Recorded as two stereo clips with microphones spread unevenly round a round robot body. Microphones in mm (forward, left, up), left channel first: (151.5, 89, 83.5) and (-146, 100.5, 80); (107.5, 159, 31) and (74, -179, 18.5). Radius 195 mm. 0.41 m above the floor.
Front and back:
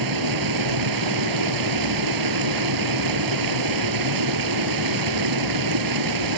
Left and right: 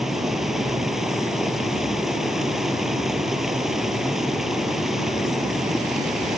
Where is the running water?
175° left.